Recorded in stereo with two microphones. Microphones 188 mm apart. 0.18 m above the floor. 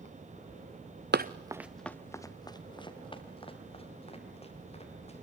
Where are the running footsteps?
60° right (ahead or behind), 0.7 m; by 5.2 s 35° left (ahead or behind), 6 m.